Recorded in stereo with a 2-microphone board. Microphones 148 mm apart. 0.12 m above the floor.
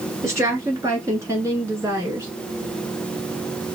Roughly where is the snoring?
No snoring in this recording.